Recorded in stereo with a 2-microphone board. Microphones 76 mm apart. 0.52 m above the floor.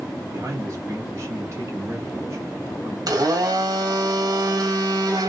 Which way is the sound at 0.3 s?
40° right (ahead or behind).